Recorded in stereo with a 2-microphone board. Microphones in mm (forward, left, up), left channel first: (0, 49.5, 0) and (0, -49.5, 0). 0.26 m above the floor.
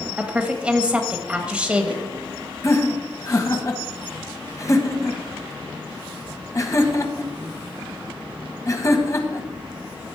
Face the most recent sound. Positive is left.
turn(degrees=35)  # may be behind; listen again after turning